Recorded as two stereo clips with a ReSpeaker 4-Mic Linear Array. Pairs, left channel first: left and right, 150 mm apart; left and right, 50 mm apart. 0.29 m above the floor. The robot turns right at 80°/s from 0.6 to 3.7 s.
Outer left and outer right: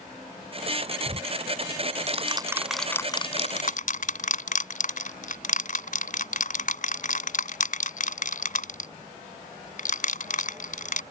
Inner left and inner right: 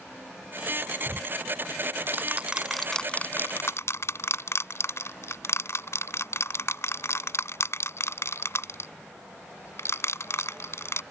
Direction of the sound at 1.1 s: 40° right (ahead or behind).